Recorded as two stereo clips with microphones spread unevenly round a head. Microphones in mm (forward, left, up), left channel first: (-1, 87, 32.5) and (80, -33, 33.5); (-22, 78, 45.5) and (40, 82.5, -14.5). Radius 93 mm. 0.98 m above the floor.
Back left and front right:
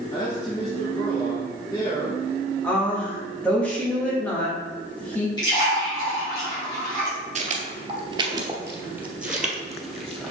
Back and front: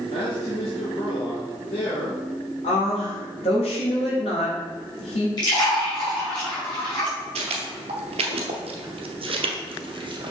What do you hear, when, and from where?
0.1 s a man speaking: 170° right, 1.4 m
2.6 s a woman speaking: 155° right, 1.7 m
5.4 s a splash: 165° right, 2.5 m
7.3 s footsteps: 40° right, 1.3 m; by 10.3 s 40° left, 1.9 m